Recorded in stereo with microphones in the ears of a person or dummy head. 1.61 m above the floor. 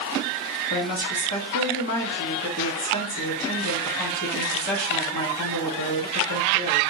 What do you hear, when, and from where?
0.7 s a woman speaking: 45° left (ahead or behind), 1.0 m